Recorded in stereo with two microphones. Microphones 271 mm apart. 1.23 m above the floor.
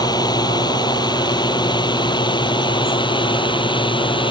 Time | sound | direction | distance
0.0 | a drone | 15° left (ahead or behind) | ?